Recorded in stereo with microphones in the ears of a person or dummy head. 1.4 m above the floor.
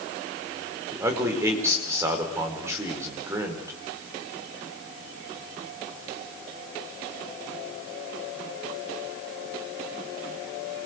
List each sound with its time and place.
0.9 s a man speaking: 10° right (ahead or behind), 5 m